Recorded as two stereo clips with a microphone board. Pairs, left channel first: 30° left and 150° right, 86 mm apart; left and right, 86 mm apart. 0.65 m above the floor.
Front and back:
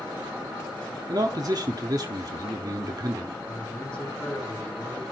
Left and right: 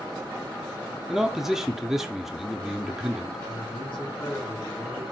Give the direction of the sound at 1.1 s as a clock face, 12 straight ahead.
6 o'clock.